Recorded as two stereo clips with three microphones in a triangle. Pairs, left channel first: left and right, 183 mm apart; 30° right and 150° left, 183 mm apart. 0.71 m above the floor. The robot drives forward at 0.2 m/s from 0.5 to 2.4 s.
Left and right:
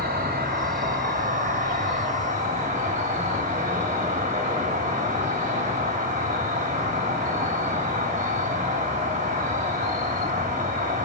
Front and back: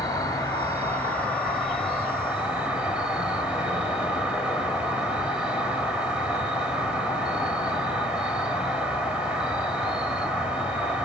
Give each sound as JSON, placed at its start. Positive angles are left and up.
{"t": 0.0, "sound": "an insect", "azimuth_deg": -100, "distance_m": 0.8}